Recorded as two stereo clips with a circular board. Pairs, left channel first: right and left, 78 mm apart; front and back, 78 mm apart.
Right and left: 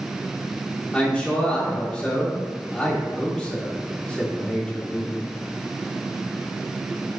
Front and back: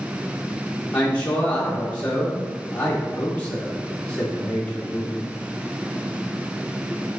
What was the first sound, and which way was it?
A man speaking, 40° right.